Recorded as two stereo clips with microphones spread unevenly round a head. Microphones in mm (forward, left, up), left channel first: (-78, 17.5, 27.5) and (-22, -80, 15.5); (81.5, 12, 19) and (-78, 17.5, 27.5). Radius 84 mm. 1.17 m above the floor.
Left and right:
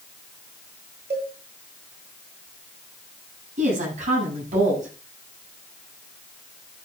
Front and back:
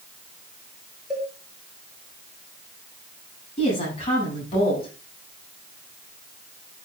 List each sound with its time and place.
1.1 s a cowbell: 95° right, 6 m
3.6 s a woman speaking: 60° right, 8 m